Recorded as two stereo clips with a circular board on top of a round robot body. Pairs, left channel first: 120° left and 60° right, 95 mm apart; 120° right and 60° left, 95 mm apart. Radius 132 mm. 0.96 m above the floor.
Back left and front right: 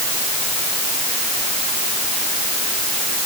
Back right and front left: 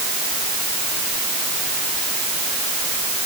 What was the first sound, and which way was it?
Only background noise.